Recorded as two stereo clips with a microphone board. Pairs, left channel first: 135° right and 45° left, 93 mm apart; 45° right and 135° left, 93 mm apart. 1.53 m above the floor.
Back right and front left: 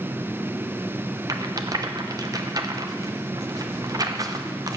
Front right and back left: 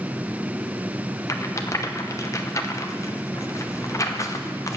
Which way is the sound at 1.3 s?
5° left.